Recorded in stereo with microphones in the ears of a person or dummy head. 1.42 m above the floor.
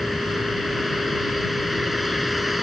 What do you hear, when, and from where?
0.0 s a vehicle: centre (ahead or behind)